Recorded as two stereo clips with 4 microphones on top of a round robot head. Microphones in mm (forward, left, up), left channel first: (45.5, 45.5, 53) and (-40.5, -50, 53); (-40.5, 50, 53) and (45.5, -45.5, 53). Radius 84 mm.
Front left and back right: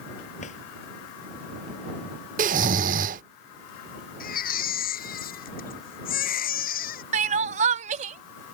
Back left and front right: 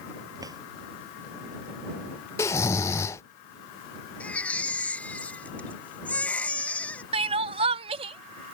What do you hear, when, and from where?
0.4 s a drawer: 15° left
2.4 s snoring: 160° right
4.2 s a baby crying: 50° left
7.1 s crying: 95° right